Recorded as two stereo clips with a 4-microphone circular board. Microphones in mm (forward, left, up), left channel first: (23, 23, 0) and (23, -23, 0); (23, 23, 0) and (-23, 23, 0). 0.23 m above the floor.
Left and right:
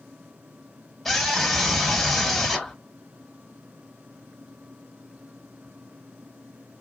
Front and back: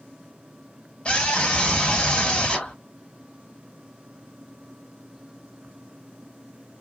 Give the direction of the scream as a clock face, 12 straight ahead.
12 o'clock.